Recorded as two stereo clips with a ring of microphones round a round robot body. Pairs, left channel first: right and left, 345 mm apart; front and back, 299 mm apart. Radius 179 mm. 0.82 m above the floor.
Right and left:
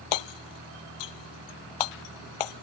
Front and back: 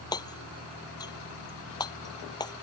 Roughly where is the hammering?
Right.